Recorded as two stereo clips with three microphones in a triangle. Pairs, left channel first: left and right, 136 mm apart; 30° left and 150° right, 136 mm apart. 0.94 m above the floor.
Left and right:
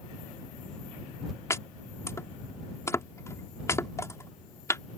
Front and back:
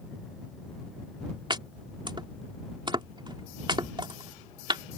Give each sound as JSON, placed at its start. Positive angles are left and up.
{"t": 1.5, "sound": "chopping", "azimuth_deg": 155}